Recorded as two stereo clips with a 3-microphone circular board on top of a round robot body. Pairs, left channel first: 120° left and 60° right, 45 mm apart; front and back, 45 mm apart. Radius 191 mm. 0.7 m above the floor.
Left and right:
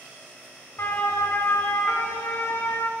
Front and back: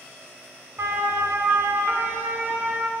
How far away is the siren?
About 4.5 m.